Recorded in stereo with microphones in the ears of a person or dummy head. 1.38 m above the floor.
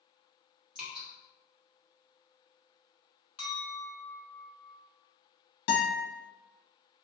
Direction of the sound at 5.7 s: 55° left (ahead or behind).